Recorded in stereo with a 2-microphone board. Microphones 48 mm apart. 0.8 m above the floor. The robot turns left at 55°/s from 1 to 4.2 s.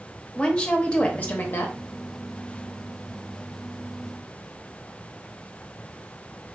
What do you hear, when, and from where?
0.3 s a woman speaking: 155° left, 0.7 m; by 1.8 s 115° left, 0.7 m